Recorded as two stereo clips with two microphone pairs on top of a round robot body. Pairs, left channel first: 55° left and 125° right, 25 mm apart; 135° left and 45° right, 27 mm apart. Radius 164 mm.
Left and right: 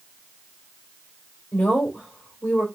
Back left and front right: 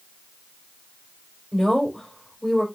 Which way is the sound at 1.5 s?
45° left.